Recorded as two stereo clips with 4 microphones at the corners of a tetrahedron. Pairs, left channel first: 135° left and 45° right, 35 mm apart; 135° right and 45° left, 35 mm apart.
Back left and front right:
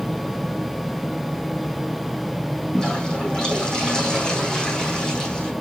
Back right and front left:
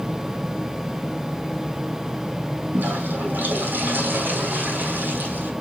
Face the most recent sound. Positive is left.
turn(degrees=70)